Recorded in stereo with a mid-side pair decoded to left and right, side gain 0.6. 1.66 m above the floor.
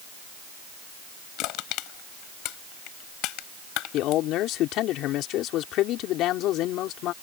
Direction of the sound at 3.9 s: 65° left.